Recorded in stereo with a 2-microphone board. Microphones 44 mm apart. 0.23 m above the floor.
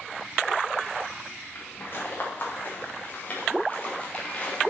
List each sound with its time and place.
1.6 s footsteps: 45° left (ahead or behind), 4.5 m; by 4.7 s 20° left (ahead or behind), 3.5 m